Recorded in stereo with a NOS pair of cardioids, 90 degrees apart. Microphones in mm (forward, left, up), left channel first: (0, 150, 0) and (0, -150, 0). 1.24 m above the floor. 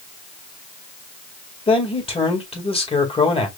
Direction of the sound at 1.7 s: 20° left.